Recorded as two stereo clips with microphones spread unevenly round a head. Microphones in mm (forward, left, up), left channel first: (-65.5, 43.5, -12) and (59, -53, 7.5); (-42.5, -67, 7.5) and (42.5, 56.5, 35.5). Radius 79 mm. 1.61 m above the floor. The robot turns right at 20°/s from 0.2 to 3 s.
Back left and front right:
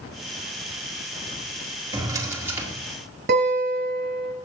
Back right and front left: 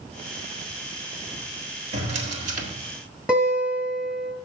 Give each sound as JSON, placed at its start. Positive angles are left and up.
{"t": 1.9, "sound": "a drawer", "azimuth_deg": 20, "distance_m": 1.8}
{"t": 3.3, "sound": "a guitar", "azimuth_deg": -25, "distance_m": 3.0}